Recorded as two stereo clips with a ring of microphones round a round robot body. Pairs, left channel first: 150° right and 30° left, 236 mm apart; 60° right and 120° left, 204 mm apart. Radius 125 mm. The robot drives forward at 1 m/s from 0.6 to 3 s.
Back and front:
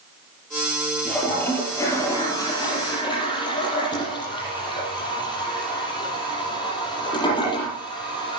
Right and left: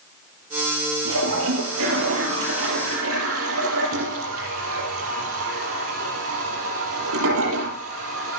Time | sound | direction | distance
1.1 | a toilet flushing | 125° left | 5 m